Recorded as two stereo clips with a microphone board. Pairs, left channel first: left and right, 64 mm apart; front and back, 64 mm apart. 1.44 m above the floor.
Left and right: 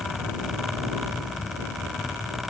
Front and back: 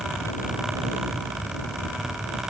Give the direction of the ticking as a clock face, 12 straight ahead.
I don't hear ticking.